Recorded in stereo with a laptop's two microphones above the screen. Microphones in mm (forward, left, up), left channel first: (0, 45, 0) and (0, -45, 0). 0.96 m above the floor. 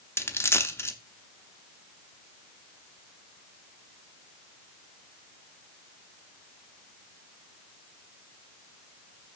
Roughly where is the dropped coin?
Left.